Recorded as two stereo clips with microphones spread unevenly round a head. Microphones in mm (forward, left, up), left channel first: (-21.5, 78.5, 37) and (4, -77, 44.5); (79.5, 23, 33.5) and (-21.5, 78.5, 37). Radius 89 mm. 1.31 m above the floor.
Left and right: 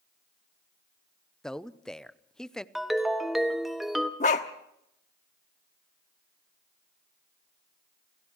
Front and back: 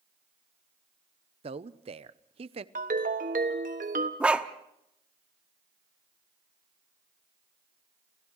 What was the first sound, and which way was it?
A man speaking, 175° right.